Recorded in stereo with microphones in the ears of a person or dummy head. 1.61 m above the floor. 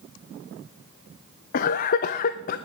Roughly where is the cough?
Left.